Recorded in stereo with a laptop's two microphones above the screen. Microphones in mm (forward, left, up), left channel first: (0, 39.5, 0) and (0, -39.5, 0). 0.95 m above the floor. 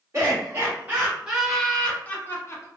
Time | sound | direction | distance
0.1 | laughter | 35° right (ahead or behind) | 1.1 m